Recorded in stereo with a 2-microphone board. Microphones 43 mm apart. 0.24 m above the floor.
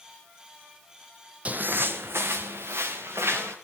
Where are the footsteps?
30° right (ahead or behind), 0.6 m; by 3.5 s 85° right, 3 m.